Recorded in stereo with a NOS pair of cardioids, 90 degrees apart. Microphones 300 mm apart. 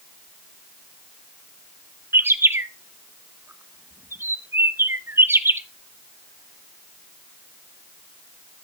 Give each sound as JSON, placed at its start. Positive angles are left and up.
{"t": 2.1, "sound": "a bird", "azimuth_deg": -10, "distance_m": 0.9}